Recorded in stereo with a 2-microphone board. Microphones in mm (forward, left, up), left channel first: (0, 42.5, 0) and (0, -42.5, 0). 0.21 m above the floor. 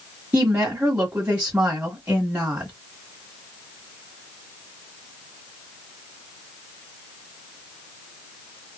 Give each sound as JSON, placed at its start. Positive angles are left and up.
{"t": 0.3, "sound": "a woman speaking", "side_deg": -25, "distance_m": 1.7}